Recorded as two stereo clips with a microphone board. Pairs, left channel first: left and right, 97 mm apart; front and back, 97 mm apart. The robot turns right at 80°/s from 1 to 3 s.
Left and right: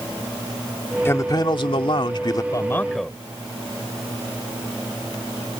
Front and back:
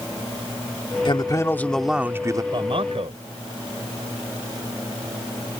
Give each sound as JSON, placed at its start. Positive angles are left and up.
{"t": 1.1, "sound": "a man speaking", "azimuth_deg": 25}
{"t": 2.5, "sound": "a man speaking", "azimuth_deg": 140}